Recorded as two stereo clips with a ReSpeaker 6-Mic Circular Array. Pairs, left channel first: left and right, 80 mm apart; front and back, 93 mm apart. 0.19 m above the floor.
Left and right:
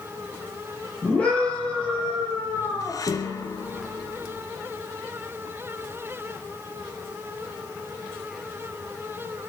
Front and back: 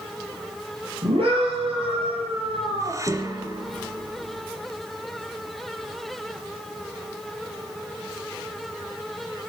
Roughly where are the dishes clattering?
Behind left.